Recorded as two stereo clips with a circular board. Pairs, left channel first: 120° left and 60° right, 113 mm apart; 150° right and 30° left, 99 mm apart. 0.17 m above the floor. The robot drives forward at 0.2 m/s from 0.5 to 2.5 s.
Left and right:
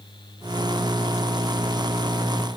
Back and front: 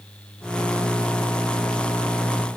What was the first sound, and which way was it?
Only background noise.